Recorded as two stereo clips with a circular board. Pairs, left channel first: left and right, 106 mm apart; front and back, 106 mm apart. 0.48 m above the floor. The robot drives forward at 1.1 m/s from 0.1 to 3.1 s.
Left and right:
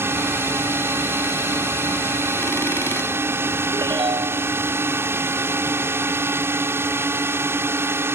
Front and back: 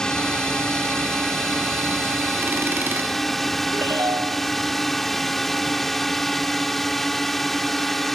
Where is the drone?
75° right; by 8.2 s 85° right.